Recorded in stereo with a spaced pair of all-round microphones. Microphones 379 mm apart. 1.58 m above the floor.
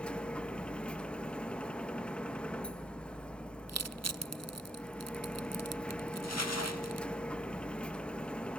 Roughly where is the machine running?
Centre.